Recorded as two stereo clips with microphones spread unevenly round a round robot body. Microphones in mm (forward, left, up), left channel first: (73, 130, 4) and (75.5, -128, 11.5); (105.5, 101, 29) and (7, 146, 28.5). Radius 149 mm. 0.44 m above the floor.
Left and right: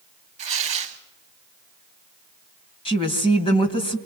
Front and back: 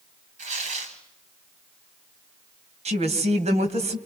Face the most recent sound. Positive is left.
turn(degrees=165)